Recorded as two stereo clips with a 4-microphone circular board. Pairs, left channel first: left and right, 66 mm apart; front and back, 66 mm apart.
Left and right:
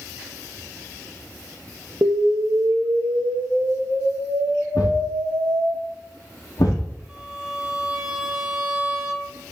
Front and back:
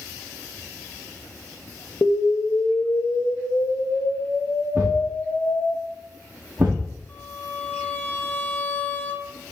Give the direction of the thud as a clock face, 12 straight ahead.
8 o'clock.